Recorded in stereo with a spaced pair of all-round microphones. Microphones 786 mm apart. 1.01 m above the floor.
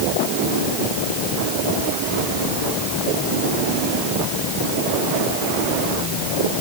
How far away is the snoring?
I don't hear snoring.